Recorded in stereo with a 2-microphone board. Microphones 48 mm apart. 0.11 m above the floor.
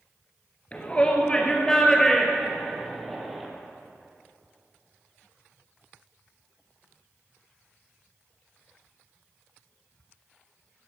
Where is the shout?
30° left (ahead or behind), 2 m; by 3.5 s centre (ahead or behind), 4 m.